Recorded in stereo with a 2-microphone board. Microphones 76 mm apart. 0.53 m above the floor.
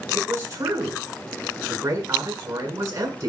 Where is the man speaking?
45° right (ahead or behind), 7.5 m.